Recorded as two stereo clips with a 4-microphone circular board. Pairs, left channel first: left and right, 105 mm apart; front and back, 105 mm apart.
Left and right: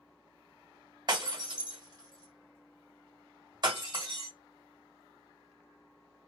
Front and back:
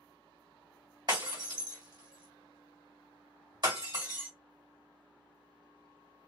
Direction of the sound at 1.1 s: 135° right.